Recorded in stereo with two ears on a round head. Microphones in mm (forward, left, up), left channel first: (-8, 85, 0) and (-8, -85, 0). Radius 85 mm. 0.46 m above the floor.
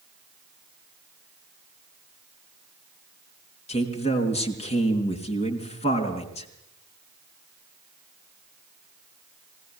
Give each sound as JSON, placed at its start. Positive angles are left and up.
{"t": 3.7, "sound": "a man speaking", "side_deg": 35, "distance_m": 4.5}